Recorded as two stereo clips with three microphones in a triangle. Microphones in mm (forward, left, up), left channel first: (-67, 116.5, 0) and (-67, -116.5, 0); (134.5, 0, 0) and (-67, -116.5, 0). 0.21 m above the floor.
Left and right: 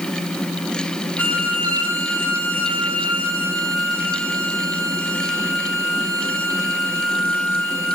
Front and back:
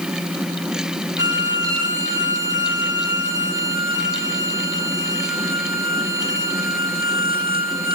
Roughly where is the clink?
No clink in this recording.